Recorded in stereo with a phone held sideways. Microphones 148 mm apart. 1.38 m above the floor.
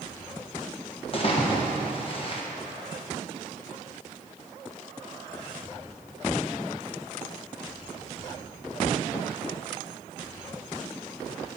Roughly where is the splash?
Left.